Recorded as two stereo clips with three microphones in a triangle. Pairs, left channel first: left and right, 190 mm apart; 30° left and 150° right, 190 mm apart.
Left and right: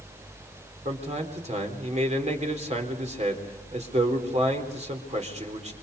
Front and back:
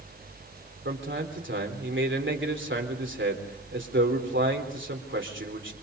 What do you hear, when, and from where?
0.8 s a man speaking: 145° right, 4 m